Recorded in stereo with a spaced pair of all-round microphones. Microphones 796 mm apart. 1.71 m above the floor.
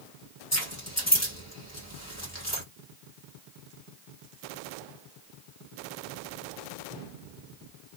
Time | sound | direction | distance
0.5 | keys jangling | 20° left (ahead or behind) | 1.5 m